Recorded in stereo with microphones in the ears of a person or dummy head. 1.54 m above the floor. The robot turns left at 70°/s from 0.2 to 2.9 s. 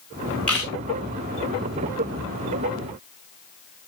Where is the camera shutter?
5° left (ahead or behind), 4 m; by 0.7 s 20° left (ahead or behind), 4 m.